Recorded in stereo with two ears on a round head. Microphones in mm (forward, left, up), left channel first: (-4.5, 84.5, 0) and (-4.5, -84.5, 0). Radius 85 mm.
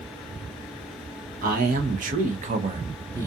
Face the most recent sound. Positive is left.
turn(degrees=-15)  # may be behind; listen again after turning